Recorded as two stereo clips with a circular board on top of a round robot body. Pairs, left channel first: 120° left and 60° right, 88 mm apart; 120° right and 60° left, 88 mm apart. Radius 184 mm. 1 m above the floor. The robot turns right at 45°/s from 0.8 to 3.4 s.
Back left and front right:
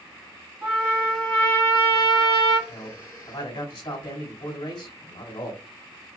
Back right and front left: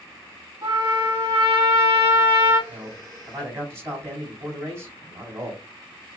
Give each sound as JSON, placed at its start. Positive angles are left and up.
{"t": 0.6, "sound": "a trumpet", "azimuth_deg": 15, "distance_m": 2.5}
{"t": 2.7, "sound": "a man speaking", "azimuth_deg": 85, "distance_m": 3.0}